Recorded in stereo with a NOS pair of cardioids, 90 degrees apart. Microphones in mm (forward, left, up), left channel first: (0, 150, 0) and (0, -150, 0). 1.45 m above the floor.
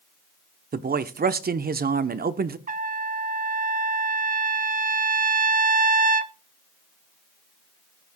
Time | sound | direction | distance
0.7 | a man speaking | 30° right | 1.0 m
2.7 | a trumpet | 30° right | 0.9 m